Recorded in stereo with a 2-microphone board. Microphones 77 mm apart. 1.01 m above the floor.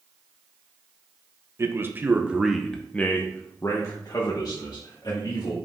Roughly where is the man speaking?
Right.